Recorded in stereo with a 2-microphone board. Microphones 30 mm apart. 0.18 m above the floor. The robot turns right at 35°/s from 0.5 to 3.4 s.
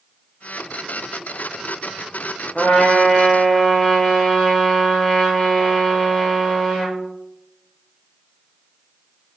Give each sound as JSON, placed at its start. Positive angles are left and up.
{"t": 2.5, "sound": "a trumpet", "side_deg": 40, "distance_m": 4.5}